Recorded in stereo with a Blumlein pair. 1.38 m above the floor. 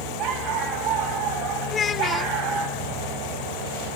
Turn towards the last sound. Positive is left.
turn(degrees=20)